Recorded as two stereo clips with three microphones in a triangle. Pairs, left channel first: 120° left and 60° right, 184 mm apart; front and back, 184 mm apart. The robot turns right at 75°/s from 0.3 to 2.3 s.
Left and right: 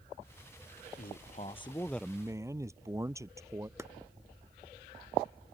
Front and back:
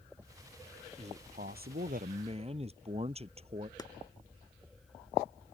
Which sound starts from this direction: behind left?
A man speaking, at 1.0 s.